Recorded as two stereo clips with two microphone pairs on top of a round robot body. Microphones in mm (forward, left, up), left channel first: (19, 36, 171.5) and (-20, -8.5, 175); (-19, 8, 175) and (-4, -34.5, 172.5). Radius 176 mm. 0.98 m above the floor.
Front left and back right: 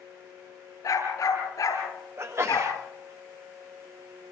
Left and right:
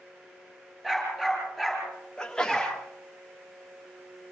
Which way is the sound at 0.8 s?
10° left.